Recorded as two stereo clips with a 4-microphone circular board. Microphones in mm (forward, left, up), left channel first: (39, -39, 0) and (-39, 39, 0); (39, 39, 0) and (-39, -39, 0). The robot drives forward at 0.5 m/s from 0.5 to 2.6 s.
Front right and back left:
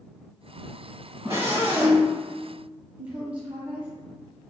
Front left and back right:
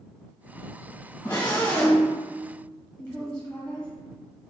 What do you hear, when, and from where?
1.2 s a scream: 90° left, 1.3 m; by 2.1 s 115° left, 1.4 m
3.0 s a woman speaking: 95° left, 0.9 m